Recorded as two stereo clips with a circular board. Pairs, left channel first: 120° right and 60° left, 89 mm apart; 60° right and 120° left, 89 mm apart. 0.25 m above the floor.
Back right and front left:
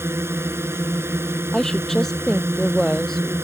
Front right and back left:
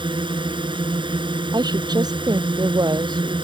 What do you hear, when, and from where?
0.0 s a drone: 120° left
1.5 s a woman speaking: 155° left